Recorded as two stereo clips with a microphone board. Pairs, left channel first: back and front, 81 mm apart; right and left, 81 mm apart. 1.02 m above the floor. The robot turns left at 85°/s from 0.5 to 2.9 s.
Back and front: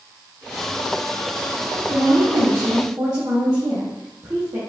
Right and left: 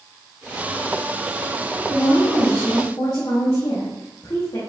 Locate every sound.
1.9 s a woman speaking: 35° left, 1.3 m; by 4.6 s 50° right, 1.3 m